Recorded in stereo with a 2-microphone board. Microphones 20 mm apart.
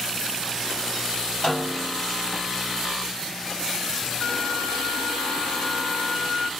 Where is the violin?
50° left (ahead or behind), 1.8 m.